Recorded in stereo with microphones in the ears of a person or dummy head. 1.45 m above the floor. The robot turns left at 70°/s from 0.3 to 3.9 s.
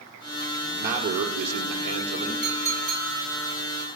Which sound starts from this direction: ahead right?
A man speaking, at 0.6 s.